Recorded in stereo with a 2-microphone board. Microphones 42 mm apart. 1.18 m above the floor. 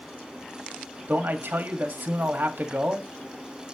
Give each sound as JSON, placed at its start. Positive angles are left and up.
{"t": 1.1, "sound": "a man speaking", "side_deg": -55, "distance_m": 1.8}